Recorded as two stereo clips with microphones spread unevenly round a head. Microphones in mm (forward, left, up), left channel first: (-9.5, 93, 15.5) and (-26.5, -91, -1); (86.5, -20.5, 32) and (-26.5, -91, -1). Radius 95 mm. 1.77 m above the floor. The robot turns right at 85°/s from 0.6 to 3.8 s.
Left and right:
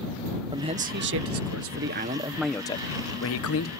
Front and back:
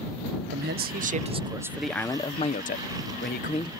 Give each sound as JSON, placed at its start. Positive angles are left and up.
{"t": 0.5, "sound": "a man speaking", "azimuth_deg": -165}